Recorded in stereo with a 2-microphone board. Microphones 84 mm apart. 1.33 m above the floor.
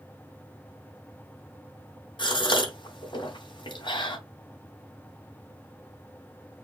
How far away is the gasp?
About 2 m.